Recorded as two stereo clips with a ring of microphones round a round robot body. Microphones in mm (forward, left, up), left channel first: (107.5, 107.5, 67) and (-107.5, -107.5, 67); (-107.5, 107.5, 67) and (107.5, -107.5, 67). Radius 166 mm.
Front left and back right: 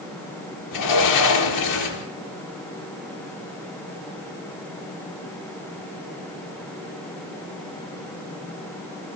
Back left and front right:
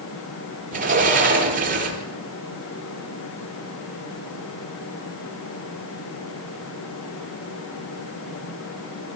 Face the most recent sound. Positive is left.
turn(degrees=20)